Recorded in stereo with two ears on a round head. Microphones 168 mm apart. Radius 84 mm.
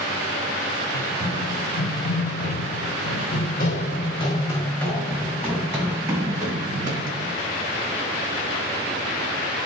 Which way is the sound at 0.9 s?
65° left (ahead or behind).